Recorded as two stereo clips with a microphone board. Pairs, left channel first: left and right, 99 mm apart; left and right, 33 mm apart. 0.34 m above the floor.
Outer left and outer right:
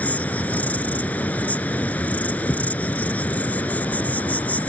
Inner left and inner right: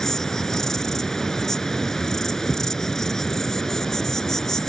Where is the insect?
15° left (ahead or behind).